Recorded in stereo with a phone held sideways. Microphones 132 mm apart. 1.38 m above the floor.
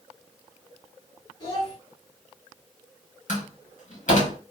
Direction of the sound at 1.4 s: 35° left (ahead or behind).